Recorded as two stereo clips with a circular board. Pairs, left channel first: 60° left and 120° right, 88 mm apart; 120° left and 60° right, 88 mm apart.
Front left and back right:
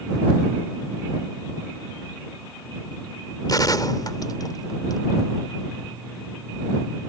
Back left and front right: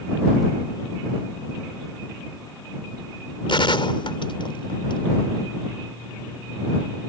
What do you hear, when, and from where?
3.5 s a gunshot: 105° left